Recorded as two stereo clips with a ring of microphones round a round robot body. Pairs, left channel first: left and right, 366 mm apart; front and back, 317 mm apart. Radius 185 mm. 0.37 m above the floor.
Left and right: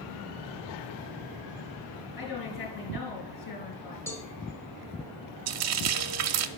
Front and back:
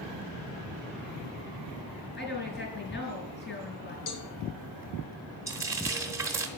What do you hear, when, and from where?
2.2 s a woman speaking: 55° left, 5 m
4.1 s a cowbell: 5° left, 1.6 m
5.5 s frying: 100° right, 0.8 m